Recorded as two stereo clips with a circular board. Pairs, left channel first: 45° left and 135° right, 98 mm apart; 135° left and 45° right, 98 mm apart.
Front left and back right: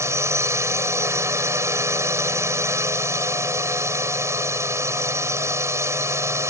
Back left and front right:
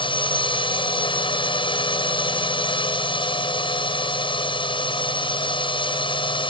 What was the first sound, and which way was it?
A drone, 165° left.